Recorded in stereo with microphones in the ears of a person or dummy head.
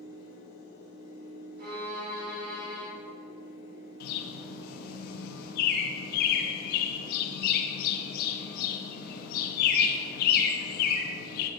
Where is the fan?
65° left (ahead or behind), 1.8 m.